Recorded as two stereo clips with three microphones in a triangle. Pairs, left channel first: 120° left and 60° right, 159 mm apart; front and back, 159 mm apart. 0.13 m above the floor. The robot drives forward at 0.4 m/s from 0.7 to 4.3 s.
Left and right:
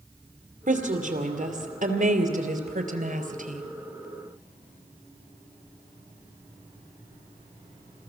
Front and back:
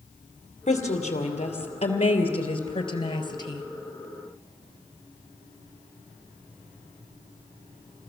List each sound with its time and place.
0.7 s a woman speaking: 35° right, 3 m; by 3.7 s 60° right, 2.5 m